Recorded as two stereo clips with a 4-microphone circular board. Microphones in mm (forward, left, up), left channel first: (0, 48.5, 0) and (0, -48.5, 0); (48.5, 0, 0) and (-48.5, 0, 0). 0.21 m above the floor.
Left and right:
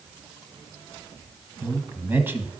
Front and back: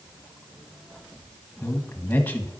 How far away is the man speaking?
About 1.3 m.